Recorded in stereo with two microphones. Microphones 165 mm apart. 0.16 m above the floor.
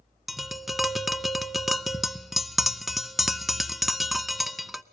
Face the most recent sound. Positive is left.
turn(degrees=0)  # may be behind; listen again after turning